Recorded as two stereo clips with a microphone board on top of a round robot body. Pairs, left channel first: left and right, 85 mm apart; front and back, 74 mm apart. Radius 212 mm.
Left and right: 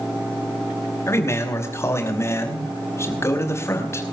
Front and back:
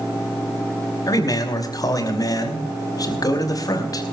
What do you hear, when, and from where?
1.1 s a man speaking: 35° left, 5 m